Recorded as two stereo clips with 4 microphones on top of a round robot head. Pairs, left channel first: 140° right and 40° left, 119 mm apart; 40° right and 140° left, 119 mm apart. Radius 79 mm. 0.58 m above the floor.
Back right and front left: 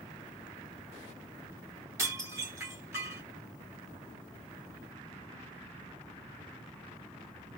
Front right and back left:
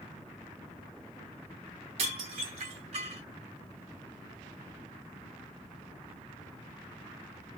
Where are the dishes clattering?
105° left, 2.5 m.